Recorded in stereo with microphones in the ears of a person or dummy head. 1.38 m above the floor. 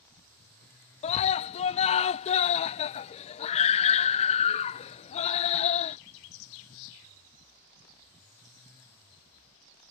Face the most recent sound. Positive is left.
turn(degrees=35)  # may be behind; listen again after turning